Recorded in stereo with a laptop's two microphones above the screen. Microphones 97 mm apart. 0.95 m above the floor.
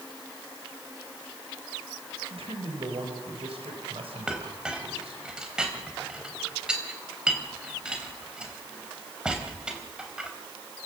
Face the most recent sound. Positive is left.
turn(degrees=-10)  # may be behind; listen again after turning